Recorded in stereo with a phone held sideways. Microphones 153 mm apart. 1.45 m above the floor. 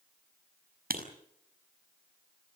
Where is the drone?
I don't hear a drone.